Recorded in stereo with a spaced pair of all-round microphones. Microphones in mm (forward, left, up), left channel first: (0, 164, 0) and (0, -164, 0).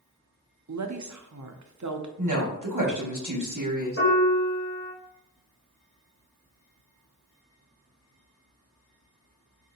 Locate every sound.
0.7 s a woman speaking: 55° right (ahead or behind), 0.5 m
2.2 s a woman speaking: 60° right (ahead or behind), 1.0 m
4.0 s a piano: 40° left (ahead or behind), 1.6 m